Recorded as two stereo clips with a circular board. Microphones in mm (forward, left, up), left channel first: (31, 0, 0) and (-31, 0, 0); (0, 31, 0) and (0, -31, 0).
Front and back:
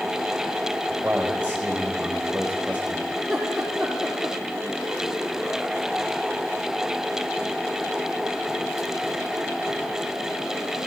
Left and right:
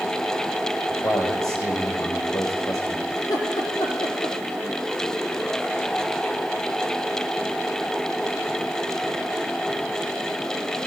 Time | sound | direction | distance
0.9 | a man speaking | 115° left | 5 m
3.2 | laughter | 95° left | 6 m